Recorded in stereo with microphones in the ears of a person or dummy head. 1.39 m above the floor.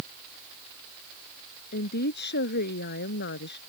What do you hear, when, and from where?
1.7 s a woman speaking: 55° left (ahead or behind); by 3.6 s 60° left (ahead or behind)